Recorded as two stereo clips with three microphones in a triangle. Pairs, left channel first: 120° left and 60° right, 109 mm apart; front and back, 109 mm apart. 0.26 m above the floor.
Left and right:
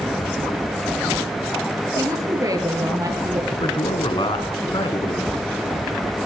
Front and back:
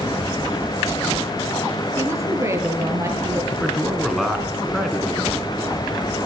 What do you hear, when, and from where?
2.0 s a woman speaking: 115° right, 6.5 m
3.5 s a man speaking: 90° left, 3.5 m